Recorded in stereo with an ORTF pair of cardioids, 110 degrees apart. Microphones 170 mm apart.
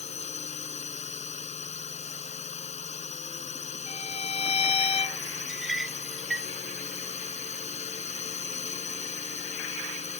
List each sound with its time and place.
0.0 s a drone: 40° left
3.9 s a violin: 40° left
5.5 s a clink: 5° right